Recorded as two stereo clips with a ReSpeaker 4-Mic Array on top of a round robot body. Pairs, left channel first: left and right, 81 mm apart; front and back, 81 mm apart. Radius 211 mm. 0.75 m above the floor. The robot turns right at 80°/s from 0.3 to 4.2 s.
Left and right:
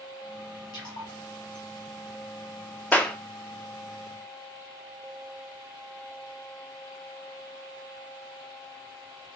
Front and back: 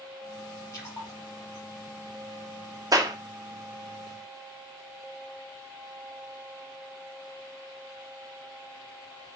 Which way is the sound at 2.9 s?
155° left.